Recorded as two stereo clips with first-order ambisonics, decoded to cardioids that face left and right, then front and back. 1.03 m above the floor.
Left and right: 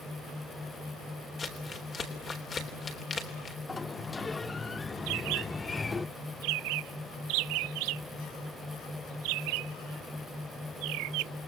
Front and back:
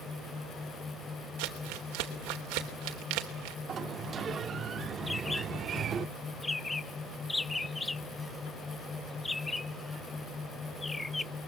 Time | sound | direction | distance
1.4 | crumpling | 160° left | 3.5 m
3.7 | a sliding door | 155° left | 0.6 m
5.1 | a bird | 80° right | 0.5 m